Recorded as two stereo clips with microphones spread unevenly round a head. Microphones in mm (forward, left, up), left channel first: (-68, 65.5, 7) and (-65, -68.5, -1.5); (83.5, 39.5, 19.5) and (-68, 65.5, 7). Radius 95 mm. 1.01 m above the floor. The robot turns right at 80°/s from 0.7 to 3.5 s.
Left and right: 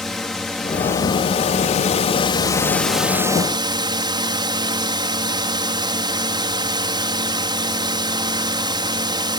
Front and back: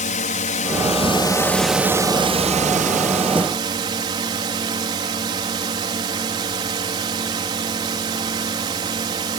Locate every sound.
0.0 s a drone: 5° left; by 9.4 s 135° right